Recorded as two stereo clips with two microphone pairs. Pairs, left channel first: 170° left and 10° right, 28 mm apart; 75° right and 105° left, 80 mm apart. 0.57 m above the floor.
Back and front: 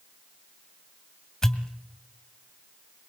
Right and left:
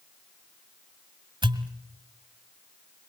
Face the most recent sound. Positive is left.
turn(degrees=95)